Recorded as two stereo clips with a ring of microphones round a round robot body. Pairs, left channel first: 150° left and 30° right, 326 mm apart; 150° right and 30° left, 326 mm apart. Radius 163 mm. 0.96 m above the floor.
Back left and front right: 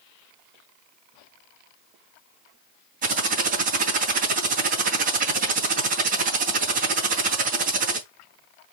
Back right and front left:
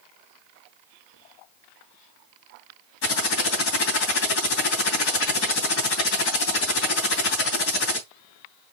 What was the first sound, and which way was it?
Typing on a keyboard, 95° right.